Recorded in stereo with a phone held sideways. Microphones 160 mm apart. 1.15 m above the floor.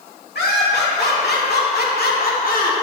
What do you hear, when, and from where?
0.3 s laughter: 85° left, 3 m; by 2.7 s 55° left (ahead or behind), 2.5 m